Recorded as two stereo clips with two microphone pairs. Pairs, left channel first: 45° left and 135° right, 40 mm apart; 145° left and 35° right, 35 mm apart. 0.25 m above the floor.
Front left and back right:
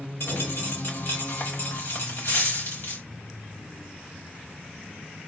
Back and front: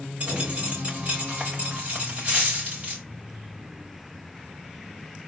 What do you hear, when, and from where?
0.2 s a dropped coin: 20° left, 3.5 m